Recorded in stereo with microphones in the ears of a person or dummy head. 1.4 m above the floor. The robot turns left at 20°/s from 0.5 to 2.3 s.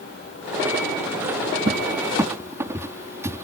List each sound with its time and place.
1.7 s a cupboard door: 25° right (ahead or behind); by 3.4 s 15° right (ahead or behind)